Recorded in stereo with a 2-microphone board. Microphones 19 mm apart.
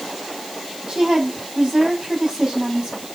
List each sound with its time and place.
0.9 s a woman speaking: 35° right (ahead or behind), 5 m